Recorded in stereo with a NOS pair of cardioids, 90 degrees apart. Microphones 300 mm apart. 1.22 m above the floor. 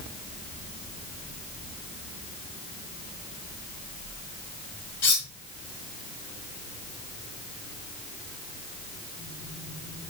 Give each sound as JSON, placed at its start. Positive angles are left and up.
{"t": 5.0, "sound": "cutlery clinking", "azimuth_deg": 40, "distance_m": 1.8}